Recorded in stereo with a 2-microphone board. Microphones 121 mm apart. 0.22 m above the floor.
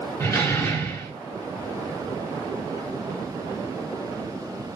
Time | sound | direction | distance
0.2 | a door slam | 20° left (ahead or behind) | 1.9 m